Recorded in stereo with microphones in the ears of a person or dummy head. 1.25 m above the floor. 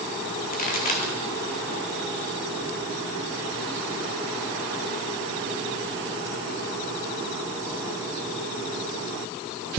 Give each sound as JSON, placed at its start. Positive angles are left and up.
{"t": 0.5, "sound": "a pop", "side_deg": 45, "distance_m": 2.5}